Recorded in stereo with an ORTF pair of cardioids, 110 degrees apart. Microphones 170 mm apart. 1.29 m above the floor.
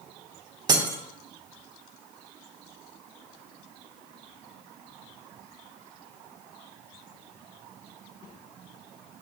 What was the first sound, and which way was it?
Breaking glass, 25° right.